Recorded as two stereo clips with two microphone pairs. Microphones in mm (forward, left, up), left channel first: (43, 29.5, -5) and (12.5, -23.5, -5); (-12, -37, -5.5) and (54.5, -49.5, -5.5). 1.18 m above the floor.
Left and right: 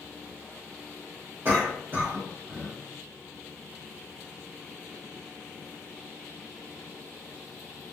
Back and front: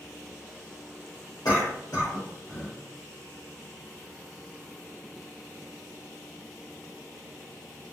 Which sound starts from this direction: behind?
A cough, at 1.4 s.